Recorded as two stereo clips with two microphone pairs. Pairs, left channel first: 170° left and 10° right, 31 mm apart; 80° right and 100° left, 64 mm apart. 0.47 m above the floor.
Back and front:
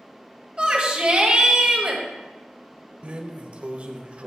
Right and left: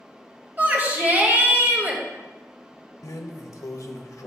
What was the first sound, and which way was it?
A shout, 45° left.